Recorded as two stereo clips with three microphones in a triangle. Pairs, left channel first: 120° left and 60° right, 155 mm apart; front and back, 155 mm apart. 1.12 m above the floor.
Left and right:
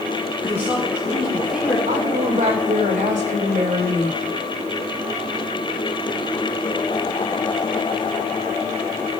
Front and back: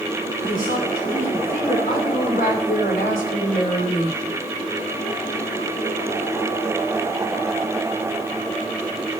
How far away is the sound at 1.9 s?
About 3 m.